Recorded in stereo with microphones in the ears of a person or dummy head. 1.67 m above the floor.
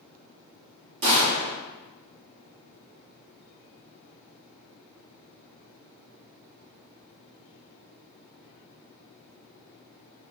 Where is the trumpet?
I don't hear a trumpet.